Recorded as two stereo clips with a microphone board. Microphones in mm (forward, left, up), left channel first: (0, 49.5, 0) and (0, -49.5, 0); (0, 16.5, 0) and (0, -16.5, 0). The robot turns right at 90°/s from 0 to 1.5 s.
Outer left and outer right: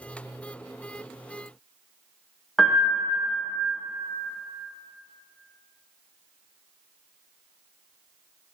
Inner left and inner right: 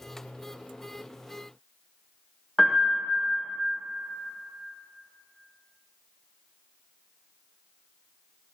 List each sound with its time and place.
2.6 s a piano: centre (ahead or behind), 1.4 m